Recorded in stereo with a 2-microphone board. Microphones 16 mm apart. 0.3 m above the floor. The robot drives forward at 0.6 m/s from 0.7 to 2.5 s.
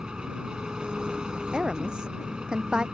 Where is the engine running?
65° right (ahead or behind).